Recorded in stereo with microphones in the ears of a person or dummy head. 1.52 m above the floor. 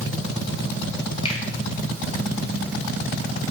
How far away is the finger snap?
About 1.0 m.